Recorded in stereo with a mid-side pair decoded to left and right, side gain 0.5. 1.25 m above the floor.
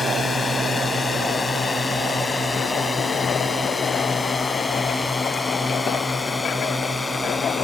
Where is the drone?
35° left; by 7.7 s 20° left.